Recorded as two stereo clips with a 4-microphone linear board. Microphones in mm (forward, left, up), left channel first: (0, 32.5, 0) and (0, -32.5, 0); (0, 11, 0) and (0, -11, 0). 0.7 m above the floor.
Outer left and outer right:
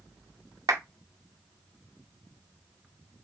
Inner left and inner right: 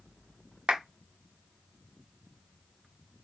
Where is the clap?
60° right (ahead or behind), 1.7 m.